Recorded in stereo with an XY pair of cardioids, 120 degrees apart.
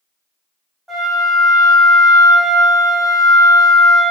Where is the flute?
5° left, 1.0 m.